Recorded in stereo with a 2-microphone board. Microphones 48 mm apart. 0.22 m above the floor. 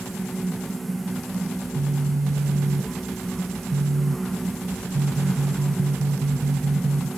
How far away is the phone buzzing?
About 0.8 m.